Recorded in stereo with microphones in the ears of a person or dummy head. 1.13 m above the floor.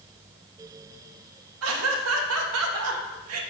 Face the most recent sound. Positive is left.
turn(degrees=-80)